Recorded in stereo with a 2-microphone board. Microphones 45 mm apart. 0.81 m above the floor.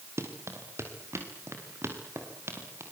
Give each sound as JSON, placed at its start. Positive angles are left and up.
{"t": 0.2, "sound": "running footsteps", "side_deg": -75, "distance_m": 5.5}